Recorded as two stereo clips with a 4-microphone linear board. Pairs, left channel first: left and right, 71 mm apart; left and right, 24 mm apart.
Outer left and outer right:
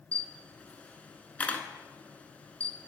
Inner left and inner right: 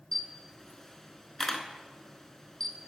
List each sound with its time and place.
0.1 s a camera shutter: 20° left (ahead or behind), 0.7 m